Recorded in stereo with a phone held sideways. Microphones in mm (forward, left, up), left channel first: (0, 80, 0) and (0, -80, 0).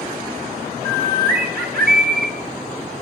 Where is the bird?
75° right (ahead or behind), 1.4 m.